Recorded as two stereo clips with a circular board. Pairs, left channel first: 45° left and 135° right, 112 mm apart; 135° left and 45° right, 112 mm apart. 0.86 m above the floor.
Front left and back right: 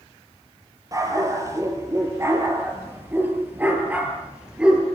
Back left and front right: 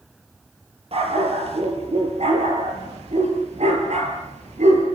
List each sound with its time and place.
0.9 s a dog barking: 75° right, 7.5 m; by 4.9 s 50° right, 6.5 m